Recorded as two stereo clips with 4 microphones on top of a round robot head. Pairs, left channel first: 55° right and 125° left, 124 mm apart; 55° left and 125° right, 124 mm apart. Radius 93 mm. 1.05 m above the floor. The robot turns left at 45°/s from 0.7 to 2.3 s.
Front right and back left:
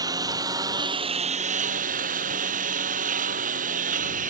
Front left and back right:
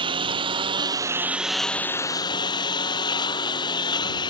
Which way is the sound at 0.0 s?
175° right.